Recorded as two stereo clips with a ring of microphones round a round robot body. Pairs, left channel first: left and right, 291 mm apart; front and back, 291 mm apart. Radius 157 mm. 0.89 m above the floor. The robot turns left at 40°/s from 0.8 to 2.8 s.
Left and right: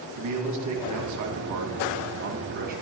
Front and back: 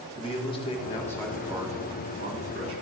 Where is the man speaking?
70° right, 1.5 m; by 2.8 s 150° right, 1.5 m.